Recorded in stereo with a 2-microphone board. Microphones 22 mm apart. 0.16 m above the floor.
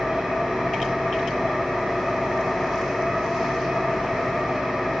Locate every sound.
0.0 s an engine running: 75° right (ahead or behind), 3.5 m